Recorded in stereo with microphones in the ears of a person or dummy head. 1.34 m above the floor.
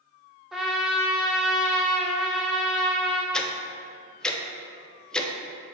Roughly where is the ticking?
Centre.